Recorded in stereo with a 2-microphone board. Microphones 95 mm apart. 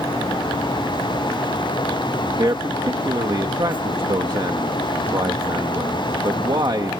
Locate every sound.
2.4 s a man speaking: 50° right (ahead or behind)